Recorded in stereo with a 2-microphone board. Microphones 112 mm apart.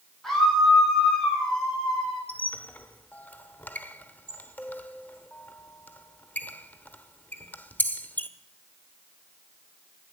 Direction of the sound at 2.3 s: 15° left (ahead or behind).